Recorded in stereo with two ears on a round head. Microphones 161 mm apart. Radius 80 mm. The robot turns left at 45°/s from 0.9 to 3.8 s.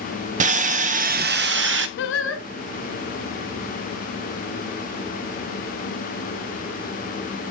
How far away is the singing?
About 0.7 m.